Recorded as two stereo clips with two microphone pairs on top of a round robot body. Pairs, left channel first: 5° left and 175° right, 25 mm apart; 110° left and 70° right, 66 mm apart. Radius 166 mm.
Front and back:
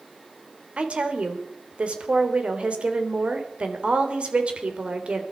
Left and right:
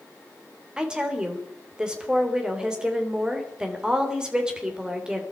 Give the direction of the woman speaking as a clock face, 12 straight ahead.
5 o'clock.